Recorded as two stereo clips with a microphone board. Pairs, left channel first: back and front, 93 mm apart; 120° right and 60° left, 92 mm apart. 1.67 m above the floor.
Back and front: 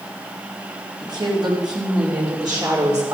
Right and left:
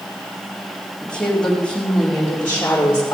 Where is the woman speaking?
40° right, 5 m; by 3.1 s 55° right, 5 m.